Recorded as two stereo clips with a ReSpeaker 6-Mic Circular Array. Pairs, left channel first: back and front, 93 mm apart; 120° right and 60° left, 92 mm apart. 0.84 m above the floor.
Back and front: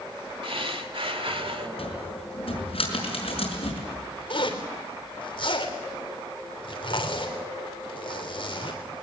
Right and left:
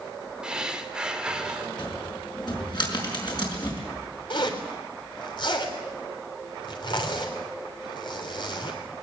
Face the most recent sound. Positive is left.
turn(degrees=-155)